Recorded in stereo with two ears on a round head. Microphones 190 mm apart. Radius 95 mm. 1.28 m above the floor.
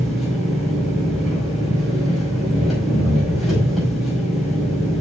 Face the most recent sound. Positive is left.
turn(degrees=0)  # may be behind; listen again after turning